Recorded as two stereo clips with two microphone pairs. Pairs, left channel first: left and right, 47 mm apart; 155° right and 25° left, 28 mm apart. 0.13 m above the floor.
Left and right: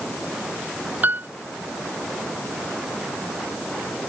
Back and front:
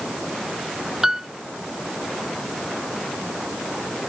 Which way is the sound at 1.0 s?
45° right.